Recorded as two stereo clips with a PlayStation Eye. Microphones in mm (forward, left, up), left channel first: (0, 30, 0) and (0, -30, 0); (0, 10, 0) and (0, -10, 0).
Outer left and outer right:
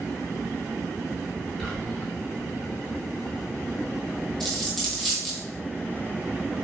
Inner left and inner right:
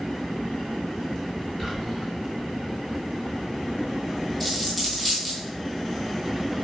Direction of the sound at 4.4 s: Centre (ahead or behind).